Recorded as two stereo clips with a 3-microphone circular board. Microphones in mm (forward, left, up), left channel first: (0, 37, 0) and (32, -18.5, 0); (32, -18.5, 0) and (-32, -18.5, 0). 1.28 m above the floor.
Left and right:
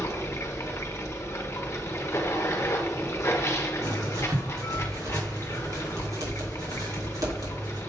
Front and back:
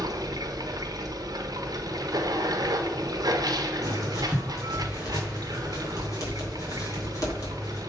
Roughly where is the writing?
Ahead right.